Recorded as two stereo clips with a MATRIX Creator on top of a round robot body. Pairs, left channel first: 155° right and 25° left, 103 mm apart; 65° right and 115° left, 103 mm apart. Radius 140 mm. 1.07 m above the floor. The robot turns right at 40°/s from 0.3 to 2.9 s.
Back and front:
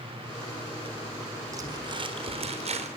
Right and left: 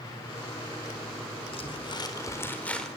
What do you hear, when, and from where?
1.5 s crumpling: 35° right, 4.5 m; by 2.9 s 20° left, 4.5 m